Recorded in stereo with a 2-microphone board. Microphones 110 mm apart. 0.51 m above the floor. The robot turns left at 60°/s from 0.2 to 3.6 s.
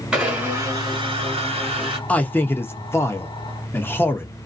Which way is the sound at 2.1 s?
15° left (ahead or behind).